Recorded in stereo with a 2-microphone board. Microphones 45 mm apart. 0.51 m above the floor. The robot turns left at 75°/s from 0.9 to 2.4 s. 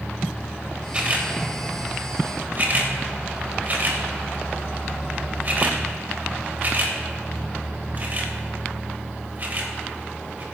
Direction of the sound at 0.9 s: 25° right (ahead or behind).